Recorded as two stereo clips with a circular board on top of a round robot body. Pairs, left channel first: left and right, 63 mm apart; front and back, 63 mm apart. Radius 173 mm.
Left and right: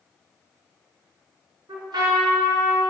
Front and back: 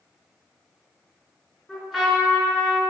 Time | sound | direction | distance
1.7 | a trumpet | 85° right | 4.5 m